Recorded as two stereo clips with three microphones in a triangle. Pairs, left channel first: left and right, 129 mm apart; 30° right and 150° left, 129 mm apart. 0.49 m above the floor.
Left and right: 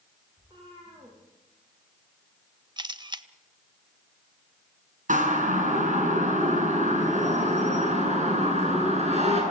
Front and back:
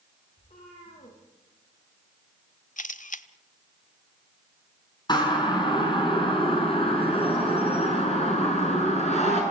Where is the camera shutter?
35° right, 0.9 m.